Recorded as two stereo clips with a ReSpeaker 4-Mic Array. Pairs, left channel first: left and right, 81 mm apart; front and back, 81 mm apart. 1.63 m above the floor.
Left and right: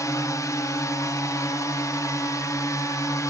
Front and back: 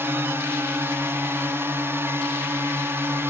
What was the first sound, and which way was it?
A drone, 125° left.